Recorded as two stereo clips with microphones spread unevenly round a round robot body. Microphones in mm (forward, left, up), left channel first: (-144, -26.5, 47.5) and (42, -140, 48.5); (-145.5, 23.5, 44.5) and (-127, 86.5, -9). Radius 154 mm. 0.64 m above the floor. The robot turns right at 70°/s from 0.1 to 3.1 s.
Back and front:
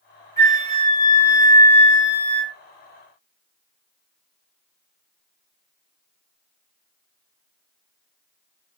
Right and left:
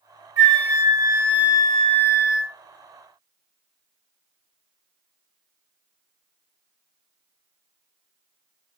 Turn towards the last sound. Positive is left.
turn(degrees=-95)